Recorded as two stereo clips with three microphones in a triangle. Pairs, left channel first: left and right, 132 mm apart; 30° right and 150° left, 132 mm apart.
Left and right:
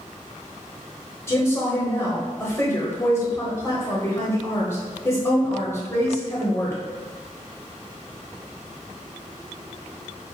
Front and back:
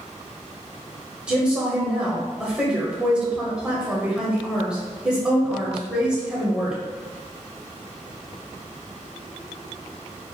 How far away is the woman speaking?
About 0.9 m.